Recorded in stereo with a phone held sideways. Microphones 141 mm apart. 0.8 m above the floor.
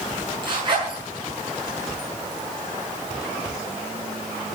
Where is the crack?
No crack in this recording.